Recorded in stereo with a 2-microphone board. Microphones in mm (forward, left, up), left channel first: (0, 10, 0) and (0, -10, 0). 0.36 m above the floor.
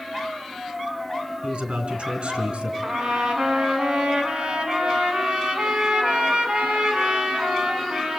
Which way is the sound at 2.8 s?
55° right (ahead or behind).